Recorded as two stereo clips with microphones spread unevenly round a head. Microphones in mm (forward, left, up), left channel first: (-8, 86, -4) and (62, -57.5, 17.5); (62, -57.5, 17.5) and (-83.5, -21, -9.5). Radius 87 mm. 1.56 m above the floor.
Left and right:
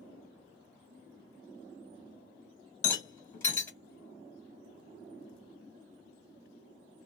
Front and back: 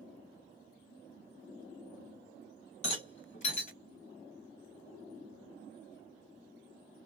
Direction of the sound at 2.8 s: 45° left.